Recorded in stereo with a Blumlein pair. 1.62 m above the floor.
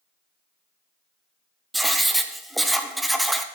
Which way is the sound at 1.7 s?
5° right.